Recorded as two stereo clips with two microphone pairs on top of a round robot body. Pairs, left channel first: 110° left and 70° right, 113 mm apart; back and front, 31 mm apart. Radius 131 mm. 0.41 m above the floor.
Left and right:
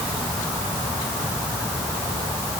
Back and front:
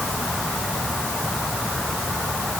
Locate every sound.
Only background noise.